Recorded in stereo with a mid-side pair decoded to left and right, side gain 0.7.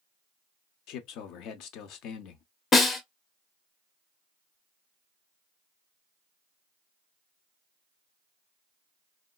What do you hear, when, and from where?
0.9 s a man speaking: 60° left, 0.6 m
2.7 s a snare drum: 30° left, 0.9 m